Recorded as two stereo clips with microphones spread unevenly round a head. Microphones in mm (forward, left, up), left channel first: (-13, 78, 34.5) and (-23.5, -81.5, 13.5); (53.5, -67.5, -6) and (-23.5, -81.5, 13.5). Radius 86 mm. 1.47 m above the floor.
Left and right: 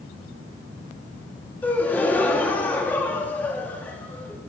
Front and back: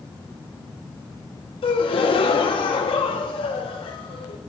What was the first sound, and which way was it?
A gasp, 10° left.